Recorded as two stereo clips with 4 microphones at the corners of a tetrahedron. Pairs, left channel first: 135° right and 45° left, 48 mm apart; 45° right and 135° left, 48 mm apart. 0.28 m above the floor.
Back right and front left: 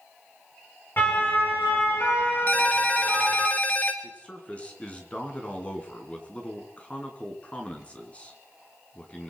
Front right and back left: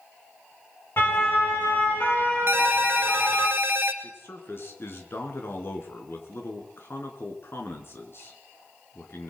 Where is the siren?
85° right, 7.5 m; by 3.5 s 100° right, 8 m.